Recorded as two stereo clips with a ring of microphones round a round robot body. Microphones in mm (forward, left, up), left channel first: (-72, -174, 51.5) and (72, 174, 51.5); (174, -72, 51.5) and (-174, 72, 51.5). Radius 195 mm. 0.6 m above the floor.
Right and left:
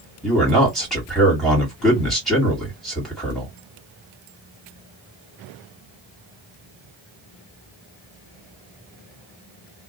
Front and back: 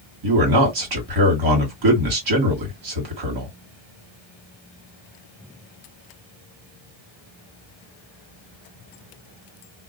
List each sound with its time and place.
0.2 s a man speaking: 160° left, 1.6 m